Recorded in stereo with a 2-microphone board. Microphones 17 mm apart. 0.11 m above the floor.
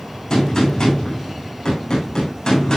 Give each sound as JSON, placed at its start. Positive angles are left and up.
{"t": 0.3, "sound": "a gunshot", "side_deg": 50, "distance_m": 9.5}